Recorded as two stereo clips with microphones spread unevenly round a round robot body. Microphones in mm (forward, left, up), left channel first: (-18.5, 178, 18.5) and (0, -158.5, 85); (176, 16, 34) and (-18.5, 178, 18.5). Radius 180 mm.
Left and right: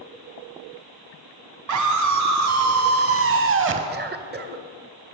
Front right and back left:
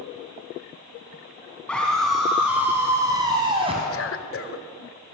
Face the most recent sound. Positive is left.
turn(degrees=-20)